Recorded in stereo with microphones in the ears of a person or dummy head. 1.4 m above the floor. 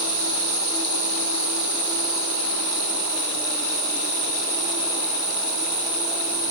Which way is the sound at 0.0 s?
20° right (ahead or behind).